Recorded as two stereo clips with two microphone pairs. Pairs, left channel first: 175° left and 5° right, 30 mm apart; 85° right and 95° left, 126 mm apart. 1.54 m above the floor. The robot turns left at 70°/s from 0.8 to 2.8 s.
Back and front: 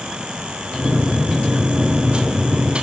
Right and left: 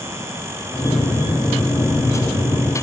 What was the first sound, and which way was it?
Only background noise.